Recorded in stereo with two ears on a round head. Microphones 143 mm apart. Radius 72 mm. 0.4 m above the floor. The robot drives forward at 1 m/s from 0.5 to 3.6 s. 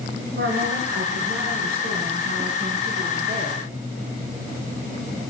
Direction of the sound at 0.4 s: 75° right (ahead or behind).